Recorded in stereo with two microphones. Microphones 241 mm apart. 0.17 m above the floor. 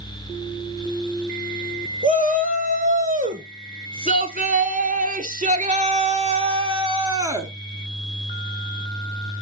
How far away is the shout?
About 2.5 m.